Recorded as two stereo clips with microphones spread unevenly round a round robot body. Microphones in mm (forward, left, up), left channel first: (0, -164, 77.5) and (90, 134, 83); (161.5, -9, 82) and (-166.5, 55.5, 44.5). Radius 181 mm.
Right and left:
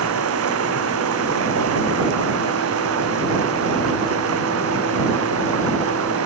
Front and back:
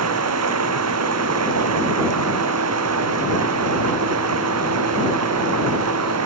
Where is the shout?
I don't hear a shout.